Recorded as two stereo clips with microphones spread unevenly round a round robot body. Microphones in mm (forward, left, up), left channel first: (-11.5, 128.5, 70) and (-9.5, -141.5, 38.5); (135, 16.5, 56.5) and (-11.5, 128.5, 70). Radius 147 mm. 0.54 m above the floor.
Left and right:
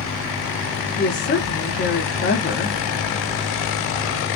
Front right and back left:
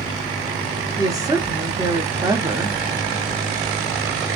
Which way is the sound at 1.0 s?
80° left.